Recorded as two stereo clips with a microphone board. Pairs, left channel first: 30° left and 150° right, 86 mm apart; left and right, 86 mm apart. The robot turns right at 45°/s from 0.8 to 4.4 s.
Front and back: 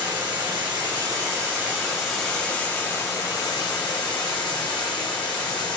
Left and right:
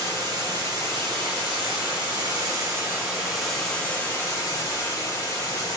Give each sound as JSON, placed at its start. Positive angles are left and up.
{"t": 0.0, "sound": "running water", "azimuth_deg": -115, "distance_m": 1.5}